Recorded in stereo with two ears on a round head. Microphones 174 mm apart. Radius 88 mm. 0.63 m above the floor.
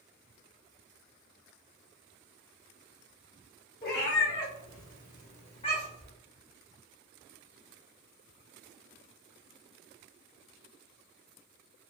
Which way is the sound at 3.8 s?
50° left (ahead or behind).